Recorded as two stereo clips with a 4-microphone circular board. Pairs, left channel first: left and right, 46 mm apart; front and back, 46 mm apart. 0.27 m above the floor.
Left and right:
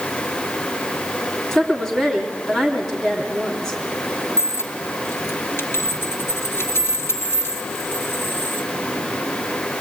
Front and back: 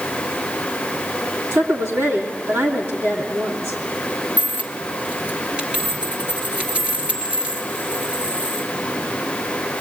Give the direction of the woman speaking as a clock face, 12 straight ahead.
6 o'clock.